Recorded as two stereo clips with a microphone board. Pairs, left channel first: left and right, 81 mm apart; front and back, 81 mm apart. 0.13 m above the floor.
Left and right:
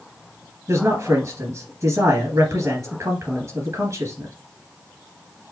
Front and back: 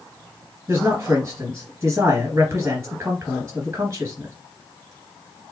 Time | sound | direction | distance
0.7 | a man speaking | 125° right | 2.5 m